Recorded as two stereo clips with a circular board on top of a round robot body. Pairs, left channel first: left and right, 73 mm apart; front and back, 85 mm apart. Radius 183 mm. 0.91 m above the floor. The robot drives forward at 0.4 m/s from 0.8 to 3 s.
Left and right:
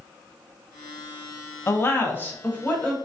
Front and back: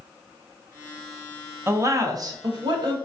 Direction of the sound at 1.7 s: 130° left.